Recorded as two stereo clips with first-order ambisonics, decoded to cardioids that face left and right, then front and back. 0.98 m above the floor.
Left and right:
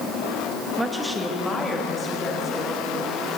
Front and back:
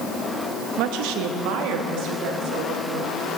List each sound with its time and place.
0.8 s a woman speaking: 165° right, 0.7 m; by 3.2 s 160° left, 3 m